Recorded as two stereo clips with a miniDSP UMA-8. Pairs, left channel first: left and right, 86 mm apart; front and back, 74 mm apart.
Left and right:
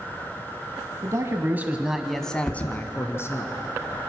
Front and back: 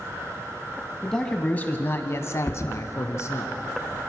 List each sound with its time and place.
1.0 s a man speaking: 80° right, 1.4 m; by 3.5 s 40° left, 2 m
2.5 s a thud: 55° left, 0.9 m